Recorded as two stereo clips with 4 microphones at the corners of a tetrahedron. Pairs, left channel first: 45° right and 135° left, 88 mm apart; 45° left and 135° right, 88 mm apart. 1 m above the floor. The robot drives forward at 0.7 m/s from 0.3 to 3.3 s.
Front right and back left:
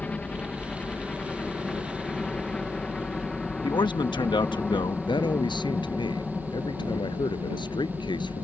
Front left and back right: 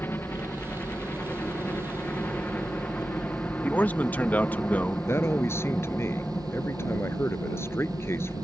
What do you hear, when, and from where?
0.0 s a helicopter: 15° left; by 8.4 s 25° left
3.6 s a man speaking: 25° right
5.1 s a man speaking: 15° right